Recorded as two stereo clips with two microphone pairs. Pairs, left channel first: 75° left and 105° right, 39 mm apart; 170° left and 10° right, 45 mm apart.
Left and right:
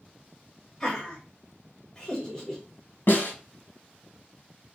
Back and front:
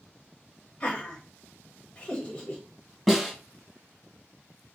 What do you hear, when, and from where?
0.8 s laughter: 130° left, 1.7 m
3.1 s a snare drum: 80° left, 2 m